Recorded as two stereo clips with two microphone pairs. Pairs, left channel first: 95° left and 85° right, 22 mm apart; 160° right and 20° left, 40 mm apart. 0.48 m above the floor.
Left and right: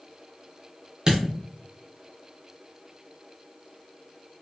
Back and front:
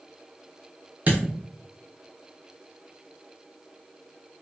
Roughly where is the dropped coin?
Ahead right.